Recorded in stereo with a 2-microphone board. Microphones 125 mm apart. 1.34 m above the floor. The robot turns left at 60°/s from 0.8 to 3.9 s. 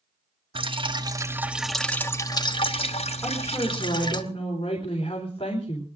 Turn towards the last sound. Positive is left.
turn(degrees=135)